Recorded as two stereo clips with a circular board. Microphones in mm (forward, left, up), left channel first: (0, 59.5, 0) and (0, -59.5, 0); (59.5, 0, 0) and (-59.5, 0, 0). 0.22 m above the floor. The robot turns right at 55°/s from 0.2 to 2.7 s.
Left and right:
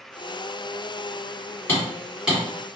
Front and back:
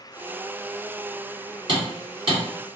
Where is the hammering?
155° left, 1.8 m; by 2.4 s 165° right, 1.8 m.